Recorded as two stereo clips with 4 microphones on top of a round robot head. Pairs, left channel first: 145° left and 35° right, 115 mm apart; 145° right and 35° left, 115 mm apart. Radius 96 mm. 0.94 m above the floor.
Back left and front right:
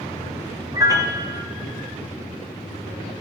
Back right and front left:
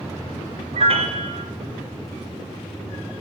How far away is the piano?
About 1.5 m.